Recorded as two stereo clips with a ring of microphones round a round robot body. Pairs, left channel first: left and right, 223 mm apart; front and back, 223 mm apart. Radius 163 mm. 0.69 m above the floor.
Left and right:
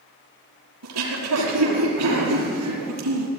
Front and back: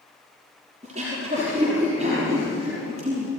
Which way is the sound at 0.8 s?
110° right.